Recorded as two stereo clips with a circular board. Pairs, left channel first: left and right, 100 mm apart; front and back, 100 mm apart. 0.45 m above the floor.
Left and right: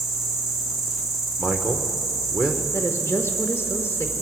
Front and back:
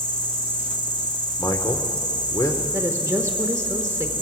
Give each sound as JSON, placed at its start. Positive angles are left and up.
{"t": 0.0, "sound": "an insect", "azimuth_deg": 0, "distance_m": 2.0}
{"t": 1.4, "sound": "a man speaking", "azimuth_deg": -15, "distance_m": 0.9}
{"t": 2.7, "sound": "a woman speaking", "azimuth_deg": 140, "distance_m": 1.0}